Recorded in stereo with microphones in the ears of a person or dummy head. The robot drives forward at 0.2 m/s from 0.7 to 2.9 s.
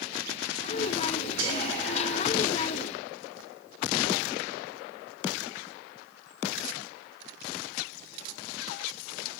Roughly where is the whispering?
Right.